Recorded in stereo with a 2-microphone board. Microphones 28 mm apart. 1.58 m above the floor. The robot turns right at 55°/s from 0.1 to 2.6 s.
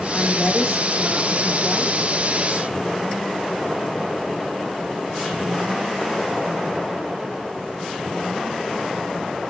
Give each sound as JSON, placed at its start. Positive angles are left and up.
{"t": 0.1, "sound": "a woman speaking", "azimuth_deg": 140, "distance_m": 1.7}